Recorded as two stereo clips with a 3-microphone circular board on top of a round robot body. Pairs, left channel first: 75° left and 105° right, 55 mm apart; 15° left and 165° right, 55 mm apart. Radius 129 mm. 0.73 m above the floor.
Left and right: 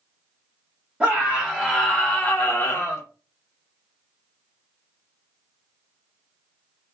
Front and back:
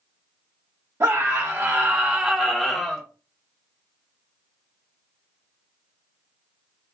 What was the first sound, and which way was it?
A scream, 170° right.